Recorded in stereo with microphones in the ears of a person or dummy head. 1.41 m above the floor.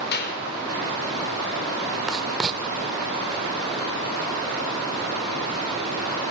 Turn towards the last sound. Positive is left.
turn(degrees=-5)  # may be behind; listen again after turning